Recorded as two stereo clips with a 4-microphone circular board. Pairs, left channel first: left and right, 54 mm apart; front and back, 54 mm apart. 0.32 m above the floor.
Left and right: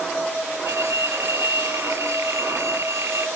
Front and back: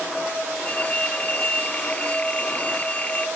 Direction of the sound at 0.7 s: 65° right.